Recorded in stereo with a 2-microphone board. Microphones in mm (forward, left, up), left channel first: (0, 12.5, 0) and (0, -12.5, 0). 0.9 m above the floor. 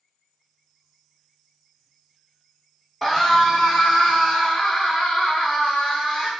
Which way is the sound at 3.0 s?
10° left (ahead or behind).